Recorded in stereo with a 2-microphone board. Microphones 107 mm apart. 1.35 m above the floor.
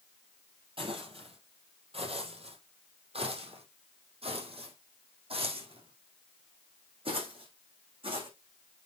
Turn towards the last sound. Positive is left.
turn(degrees=-55)  # may be behind; listen again after turning